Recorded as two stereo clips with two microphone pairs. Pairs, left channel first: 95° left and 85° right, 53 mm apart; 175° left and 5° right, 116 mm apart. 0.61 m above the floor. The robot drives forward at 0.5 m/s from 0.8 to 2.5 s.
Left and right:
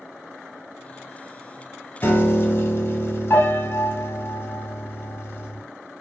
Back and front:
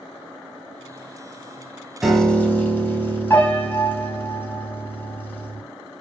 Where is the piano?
80° left, 0.6 m; by 5.6 s 105° left, 0.6 m.